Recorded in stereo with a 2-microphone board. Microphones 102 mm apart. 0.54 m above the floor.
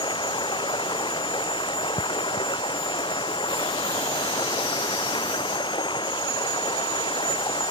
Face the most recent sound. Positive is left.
turn(degrees=50)  # may be behind; listen again after turning